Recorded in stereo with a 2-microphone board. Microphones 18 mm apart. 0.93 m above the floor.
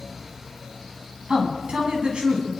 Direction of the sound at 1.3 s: 60° right (ahead or behind).